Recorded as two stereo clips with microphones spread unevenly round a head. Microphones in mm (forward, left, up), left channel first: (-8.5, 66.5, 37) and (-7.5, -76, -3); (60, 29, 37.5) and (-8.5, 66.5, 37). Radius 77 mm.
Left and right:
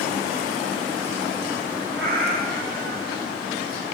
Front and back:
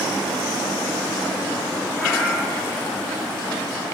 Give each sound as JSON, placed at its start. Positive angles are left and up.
{"t": 2.0, "sound": "a cat meowing", "azimuth_deg": -115, "distance_m": 2.5}